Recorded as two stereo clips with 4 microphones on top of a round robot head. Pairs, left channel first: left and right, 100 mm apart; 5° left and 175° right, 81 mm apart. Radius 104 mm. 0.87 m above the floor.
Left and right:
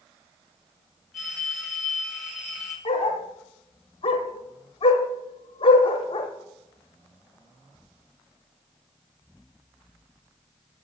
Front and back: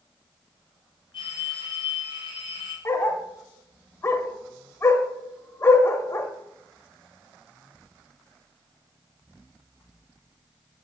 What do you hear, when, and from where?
1.1 s a phone ringing: straight ahead, 3.5 m
2.9 s a dog barking: 55° left, 0.7 m